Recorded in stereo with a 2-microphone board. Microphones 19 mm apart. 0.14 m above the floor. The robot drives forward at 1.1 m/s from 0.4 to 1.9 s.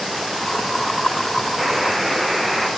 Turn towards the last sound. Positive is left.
turn(degrees=-5)  # may be behind; listen again after turning